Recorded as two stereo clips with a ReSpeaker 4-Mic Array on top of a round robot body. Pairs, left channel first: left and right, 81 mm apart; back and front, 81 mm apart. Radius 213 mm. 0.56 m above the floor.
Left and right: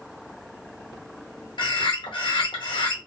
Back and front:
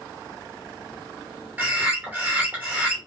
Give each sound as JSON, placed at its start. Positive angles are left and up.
{"t": 1.6, "sound": "a bird", "azimuth_deg": 70, "distance_m": 0.8}